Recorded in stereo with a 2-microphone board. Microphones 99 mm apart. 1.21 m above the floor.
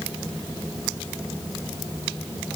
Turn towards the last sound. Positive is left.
No sound to turn to.